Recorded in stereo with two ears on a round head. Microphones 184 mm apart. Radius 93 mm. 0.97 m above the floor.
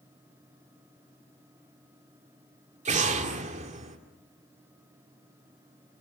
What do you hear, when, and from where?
2.9 s an explosion: 35° right (ahead or behind), 2 m